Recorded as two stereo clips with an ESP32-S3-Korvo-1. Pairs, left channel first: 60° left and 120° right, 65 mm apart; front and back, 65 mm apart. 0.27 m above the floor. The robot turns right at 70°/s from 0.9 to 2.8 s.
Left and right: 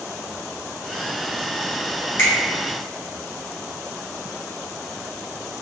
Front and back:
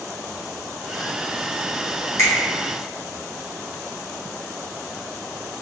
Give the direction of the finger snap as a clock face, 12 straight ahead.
11 o'clock.